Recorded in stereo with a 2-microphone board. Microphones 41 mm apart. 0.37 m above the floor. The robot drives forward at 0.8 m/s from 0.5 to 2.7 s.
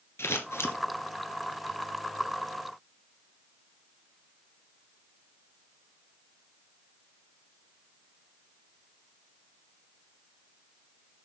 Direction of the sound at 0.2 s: 85° left.